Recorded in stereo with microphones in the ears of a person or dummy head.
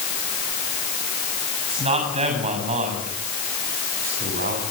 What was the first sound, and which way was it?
A man speaking, 30° right (ahead or behind).